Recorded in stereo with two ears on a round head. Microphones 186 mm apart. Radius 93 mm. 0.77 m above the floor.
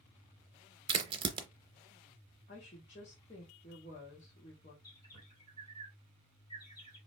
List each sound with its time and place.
0.9 s a crack: 25° right (ahead or behind), 0.7 m
2.5 s a woman speaking: 35° left (ahead or behind), 1.4 m
4.8 s a bird: 20° left (ahead or behind), 3 m